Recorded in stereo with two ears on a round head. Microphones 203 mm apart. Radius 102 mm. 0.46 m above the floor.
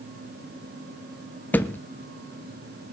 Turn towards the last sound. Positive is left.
turn(degrees=10)  # may be behind; listen again after turning